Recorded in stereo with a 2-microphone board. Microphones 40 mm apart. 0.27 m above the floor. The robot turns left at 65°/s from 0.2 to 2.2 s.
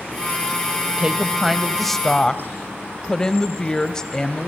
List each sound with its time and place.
1.0 s a woman speaking: 130° right, 1.0 m; by 4.5 s 150° left, 1.0 m